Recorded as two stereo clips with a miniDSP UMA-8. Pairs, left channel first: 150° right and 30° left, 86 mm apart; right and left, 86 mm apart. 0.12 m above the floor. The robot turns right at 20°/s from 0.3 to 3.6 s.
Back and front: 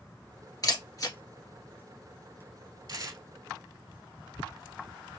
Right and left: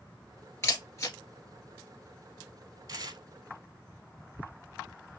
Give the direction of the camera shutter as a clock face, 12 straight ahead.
4 o'clock.